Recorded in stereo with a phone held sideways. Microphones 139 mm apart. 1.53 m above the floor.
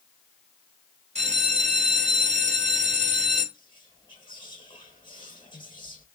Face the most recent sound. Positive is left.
turn(degrees=35)  # may be behind; listen again after turning